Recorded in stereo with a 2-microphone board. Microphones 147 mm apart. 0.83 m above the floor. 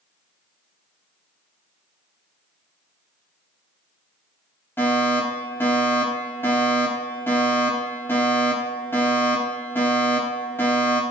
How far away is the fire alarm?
About 8 m.